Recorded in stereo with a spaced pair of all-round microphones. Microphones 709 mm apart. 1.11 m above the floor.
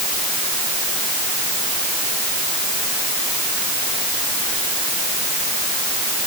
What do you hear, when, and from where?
Only background noise.